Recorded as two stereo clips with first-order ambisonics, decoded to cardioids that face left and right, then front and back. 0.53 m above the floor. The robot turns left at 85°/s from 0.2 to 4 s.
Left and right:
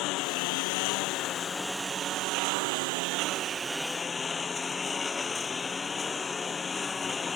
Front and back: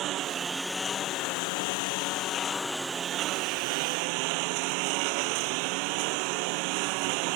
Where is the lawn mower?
130° left; by 7.4 s 165° left.